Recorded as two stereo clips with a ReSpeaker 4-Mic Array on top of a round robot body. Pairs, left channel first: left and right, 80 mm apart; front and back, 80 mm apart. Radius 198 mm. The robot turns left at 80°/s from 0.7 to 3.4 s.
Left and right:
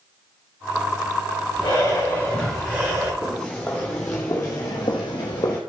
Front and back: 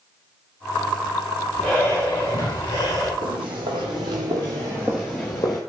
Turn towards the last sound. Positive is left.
turn(degrees=40)